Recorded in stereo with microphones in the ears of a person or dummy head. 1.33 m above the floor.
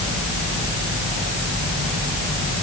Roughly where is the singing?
I don't hear singing.